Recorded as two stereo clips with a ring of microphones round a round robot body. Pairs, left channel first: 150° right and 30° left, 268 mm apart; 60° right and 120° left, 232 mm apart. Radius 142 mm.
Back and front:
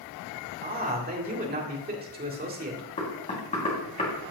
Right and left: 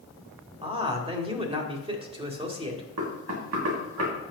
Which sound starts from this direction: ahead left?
A man speaking, at 0.6 s.